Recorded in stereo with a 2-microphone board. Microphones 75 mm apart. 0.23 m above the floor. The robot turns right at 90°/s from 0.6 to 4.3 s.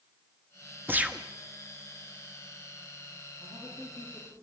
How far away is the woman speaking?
About 8.5 m.